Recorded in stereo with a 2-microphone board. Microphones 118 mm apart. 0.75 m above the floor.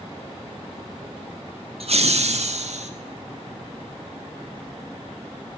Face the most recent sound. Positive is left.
turn(degrees=-70)  # may be behind; listen again after turning